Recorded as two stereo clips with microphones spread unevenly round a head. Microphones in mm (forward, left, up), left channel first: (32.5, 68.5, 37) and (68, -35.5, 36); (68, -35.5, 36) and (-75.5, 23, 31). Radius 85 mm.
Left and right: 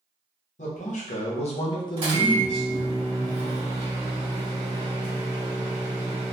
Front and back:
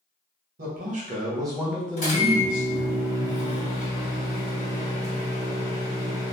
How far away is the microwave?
About 1.5 m.